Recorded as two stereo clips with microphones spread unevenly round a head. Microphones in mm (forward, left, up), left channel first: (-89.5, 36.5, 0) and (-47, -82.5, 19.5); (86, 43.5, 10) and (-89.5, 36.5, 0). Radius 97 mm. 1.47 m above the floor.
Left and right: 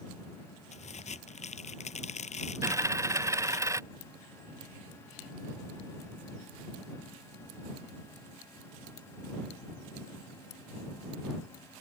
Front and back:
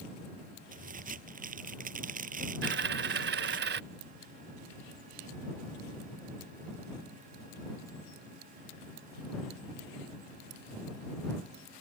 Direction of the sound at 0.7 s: 140° left.